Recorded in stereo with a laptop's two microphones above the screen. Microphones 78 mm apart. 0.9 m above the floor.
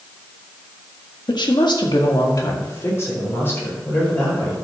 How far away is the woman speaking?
About 1.7 m.